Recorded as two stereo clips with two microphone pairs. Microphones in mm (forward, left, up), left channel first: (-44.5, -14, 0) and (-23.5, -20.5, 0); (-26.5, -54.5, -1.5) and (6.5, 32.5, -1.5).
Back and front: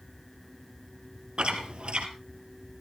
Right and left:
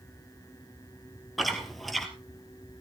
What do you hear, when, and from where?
1.4 s chewing: 20° right, 2.5 m